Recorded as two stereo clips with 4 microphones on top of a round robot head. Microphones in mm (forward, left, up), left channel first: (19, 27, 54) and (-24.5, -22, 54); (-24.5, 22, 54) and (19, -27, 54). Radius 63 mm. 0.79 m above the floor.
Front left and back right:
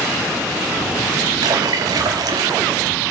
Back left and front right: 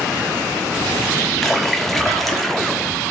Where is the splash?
140° right, 1.5 m.